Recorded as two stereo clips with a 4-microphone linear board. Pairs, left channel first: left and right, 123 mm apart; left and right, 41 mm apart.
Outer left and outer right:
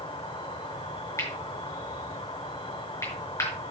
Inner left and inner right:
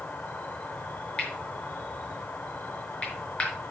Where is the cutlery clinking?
25° left (ahead or behind), 5.5 m.